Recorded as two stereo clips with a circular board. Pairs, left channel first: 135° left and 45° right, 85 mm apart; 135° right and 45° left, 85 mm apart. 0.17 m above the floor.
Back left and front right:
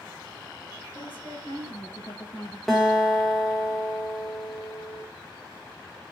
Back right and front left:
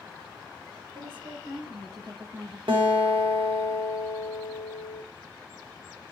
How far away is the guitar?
About 3 m.